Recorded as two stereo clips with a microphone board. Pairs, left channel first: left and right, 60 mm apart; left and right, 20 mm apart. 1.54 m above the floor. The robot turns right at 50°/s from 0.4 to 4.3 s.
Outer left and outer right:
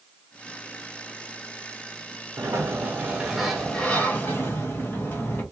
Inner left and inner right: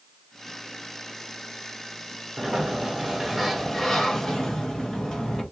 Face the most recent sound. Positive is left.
turn(degrees=40)